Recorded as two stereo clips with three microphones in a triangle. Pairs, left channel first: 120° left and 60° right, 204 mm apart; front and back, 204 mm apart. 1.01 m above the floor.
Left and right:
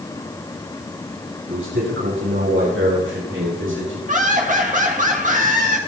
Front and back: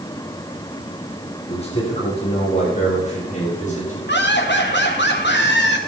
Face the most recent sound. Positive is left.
turn(degrees=-15)